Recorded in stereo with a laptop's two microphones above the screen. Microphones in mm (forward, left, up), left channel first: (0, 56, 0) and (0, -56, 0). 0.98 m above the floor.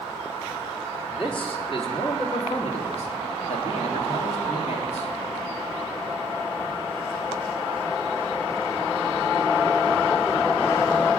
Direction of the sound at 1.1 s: 45° left (ahead or behind).